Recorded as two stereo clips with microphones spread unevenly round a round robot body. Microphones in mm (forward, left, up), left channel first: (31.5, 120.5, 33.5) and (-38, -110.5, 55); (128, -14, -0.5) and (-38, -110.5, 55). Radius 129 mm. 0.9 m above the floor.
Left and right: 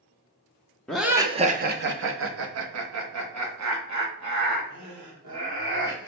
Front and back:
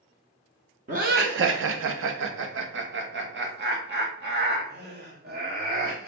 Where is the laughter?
155° left, 0.6 m; by 6.1 s 110° right, 2.5 m.